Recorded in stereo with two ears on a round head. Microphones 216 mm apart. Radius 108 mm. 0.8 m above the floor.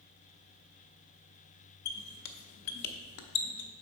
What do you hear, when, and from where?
1.9 s a squeak: 75° left (ahead or behind), 0.6 m